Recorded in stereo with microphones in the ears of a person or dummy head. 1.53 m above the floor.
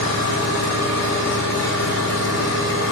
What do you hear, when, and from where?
0.0 s an engine running: 70° left (ahead or behind), 2.5 m